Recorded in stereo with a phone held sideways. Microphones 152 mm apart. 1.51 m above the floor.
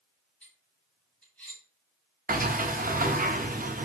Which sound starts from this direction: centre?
Cutlery clinking, at 0.4 s.